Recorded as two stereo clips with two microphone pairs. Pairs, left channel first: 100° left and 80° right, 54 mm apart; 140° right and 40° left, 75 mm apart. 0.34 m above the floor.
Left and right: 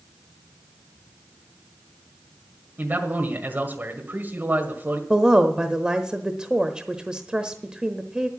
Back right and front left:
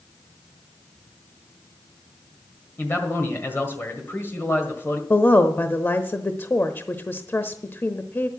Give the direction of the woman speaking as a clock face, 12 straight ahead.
4 o'clock.